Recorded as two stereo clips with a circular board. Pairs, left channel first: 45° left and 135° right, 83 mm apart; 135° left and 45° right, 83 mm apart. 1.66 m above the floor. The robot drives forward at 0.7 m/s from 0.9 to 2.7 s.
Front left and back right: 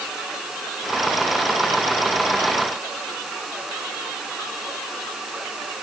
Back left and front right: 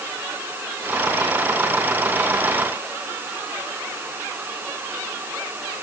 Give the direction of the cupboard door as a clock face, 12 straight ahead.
I don't hear a cupboard door.